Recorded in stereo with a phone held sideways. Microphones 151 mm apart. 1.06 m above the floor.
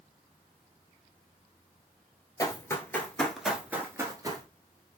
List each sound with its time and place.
2.4 s running footsteps: 25° left (ahead or behind), 1.2 m; by 4.5 s 30° right (ahead or behind), 1.1 m